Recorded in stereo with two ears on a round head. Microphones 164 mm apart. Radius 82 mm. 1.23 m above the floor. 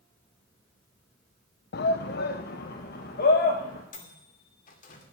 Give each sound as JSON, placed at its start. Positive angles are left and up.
{"t": 1.7, "sound": "a shout", "side_deg": 55, "distance_m": 0.7}
{"t": 3.9, "sound": "a microwave", "side_deg": 45, "distance_m": 2.5}